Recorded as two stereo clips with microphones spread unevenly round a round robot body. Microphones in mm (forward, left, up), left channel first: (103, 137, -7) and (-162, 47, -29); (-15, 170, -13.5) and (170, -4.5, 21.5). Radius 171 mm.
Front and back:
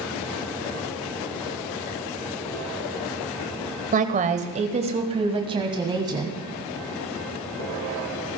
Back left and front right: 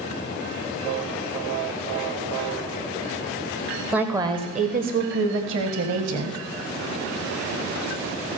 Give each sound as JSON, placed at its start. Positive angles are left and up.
{"t": 3.9, "sound": "a woman speaking", "azimuth_deg": -140, "distance_m": 1.1}